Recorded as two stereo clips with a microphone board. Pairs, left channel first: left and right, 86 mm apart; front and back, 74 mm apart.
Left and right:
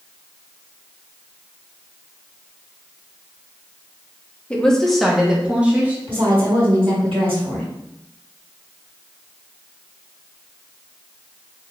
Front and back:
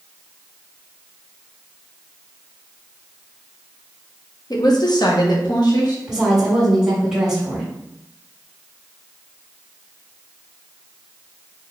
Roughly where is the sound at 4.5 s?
Ahead.